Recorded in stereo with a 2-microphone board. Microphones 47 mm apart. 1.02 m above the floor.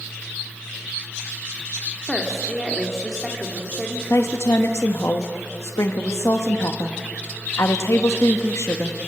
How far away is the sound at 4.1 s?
About 1.1 m.